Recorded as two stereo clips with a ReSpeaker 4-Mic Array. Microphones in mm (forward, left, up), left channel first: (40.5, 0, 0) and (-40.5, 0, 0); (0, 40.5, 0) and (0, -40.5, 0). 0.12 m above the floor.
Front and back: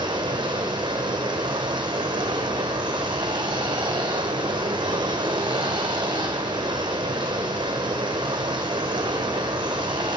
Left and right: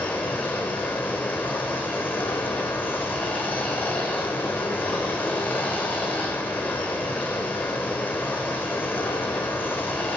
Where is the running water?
155° left, 1.0 m.